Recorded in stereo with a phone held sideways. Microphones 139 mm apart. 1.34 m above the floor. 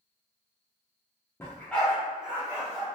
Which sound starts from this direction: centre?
A dog barking, at 1.4 s.